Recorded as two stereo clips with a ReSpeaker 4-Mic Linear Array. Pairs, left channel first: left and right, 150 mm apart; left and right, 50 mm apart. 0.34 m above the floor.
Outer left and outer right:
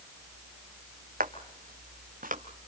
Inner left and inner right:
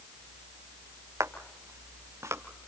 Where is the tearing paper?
No tearing paper in this recording.